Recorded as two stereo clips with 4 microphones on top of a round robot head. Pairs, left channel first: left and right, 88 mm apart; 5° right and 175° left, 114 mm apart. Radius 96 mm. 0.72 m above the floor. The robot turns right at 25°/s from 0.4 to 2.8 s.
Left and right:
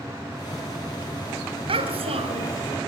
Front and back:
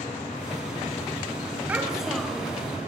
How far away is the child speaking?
About 3.5 m.